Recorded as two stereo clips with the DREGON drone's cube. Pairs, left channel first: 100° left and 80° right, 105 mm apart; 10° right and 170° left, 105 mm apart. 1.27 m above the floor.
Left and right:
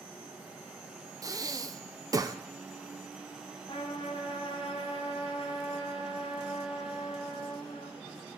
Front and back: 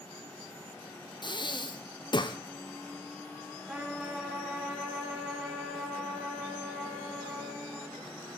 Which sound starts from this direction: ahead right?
Breathing, at 1.2 s.